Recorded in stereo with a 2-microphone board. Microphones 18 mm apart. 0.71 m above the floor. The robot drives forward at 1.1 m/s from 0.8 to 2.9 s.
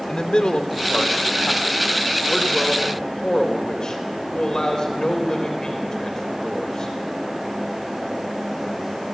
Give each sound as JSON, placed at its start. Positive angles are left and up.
{"t": 0.1, "sound": "a man speaking", "side_deg": 65, "distance_m": 2.5}